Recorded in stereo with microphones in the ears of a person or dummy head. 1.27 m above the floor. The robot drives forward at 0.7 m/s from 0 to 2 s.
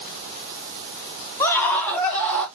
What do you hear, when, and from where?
1.4 s a scream: 20° left (ahead or behind), 0.7 m; by 2.5 s 10° left (ahead or behind), 1.2 m